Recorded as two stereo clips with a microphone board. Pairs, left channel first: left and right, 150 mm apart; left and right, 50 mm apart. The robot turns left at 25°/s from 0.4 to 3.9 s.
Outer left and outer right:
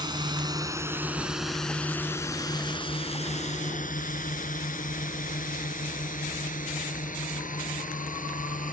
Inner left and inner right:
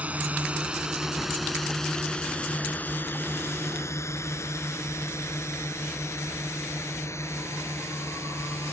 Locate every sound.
0.0 s a drone: 30° right (ahead or behind); by 8.7 s 60° left (ahead or behind)